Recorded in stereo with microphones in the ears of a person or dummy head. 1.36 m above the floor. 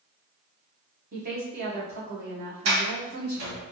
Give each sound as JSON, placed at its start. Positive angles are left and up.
{"t": 1.1, "sound": "a woman speaking", "side_deg": -55, "distance_m": 1.1}
{"t": 2.6, "sound": "a sliding door", "side_deg": -75, "distance_m": 1.2}